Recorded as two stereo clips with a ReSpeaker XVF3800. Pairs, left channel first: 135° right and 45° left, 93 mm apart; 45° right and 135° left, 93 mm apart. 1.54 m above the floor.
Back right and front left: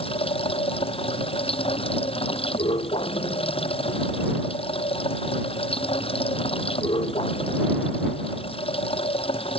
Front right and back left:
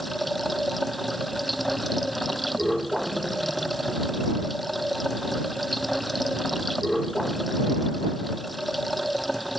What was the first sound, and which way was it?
Running water, 135° right.